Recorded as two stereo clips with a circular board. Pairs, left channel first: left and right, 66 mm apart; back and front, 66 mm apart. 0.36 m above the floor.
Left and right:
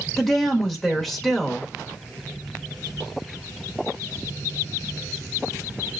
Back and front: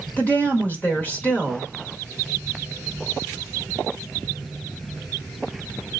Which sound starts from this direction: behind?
A woman speaking, at 0.2 s.